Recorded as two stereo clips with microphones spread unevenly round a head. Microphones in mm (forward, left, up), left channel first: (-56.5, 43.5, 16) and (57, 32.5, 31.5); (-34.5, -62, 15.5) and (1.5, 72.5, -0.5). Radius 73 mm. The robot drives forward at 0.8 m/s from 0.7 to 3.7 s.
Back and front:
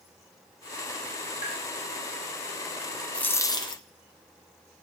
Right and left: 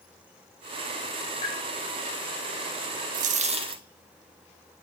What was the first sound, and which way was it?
Tapping, 145° right.